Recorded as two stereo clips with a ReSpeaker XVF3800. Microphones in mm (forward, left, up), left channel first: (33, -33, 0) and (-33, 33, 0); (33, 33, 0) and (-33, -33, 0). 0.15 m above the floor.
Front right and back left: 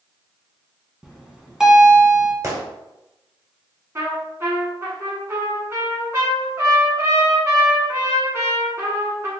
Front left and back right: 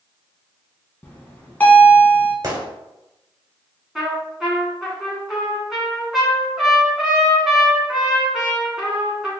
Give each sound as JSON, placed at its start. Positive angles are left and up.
{"t": 1.0, "sound": "a bell", "azimuth_deg": 65, "distance_m": 0.8}
{"t": 2.4, "sound": "a gunshot", "azimuth_deg": -175, "distance_m": 1.2}
{"t": 4.0, "sound": "a trumpet", "azimuth_deg": 140, "distance_m": 1.2}